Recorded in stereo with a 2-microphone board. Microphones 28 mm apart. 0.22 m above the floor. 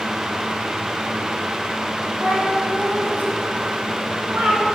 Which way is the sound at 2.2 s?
85° right.